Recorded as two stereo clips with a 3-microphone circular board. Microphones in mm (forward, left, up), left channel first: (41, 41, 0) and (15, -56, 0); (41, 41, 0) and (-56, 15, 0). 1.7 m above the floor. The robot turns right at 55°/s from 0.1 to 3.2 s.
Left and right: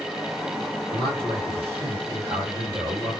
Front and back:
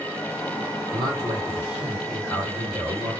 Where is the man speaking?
130° right, 1.9 m; by 3.1 s 10° right, 1.9 m.